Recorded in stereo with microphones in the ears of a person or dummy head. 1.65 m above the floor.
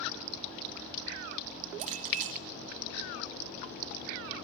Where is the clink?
45° right (ahead or behind), 1.7 m.